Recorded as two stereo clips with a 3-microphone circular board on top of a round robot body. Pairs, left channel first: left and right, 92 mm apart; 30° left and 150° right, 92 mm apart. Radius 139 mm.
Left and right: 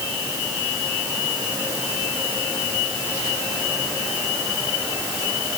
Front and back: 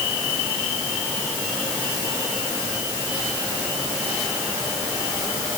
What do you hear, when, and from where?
Only background noise.